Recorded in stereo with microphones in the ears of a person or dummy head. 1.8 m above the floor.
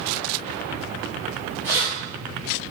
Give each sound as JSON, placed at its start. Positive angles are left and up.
{"t": 1.6, "sound": "keys jangling", "side_deg": -20, "distance_m": 1.9}